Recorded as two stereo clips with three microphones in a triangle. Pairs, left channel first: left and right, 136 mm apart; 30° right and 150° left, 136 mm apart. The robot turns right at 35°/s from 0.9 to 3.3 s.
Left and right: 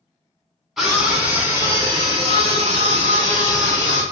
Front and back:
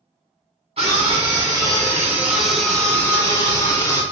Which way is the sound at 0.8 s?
Straight behind.